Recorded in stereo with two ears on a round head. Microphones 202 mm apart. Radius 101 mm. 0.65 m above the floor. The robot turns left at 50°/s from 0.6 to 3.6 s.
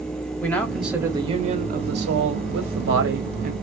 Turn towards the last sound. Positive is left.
turn(degrees=-140)